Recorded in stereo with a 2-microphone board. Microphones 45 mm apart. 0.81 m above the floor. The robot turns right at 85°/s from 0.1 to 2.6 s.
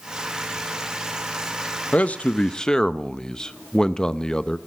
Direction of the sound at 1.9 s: 90° left.